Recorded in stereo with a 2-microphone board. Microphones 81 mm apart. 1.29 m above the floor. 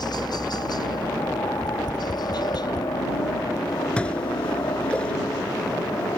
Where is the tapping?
60° left (ahead or behind).